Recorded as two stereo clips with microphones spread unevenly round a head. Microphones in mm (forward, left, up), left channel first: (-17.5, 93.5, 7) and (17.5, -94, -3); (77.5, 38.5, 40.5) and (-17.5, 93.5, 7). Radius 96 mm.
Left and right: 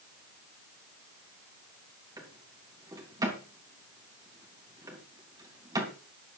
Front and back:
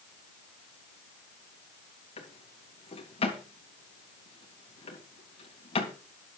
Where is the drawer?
5° right, 3 m.